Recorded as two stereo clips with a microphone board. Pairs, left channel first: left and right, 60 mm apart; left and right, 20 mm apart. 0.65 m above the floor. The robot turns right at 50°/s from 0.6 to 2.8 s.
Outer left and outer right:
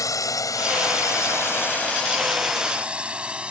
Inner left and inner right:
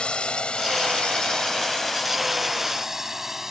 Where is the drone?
70° left (ahead or behind); by 3.5 s 20° right (ahead or behind).